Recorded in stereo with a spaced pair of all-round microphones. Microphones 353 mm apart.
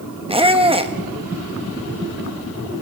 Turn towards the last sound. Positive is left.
turn(degrees=-15)  # may be behind; listen again after turning